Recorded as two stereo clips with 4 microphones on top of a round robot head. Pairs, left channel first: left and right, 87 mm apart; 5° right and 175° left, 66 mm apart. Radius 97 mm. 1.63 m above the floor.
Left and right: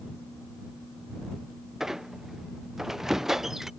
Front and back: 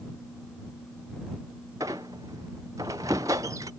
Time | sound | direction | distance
1.8 | a squeak | 175° right | ?